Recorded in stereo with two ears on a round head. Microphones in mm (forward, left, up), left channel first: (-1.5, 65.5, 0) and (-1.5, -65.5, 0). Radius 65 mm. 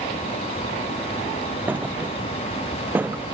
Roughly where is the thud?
Centre.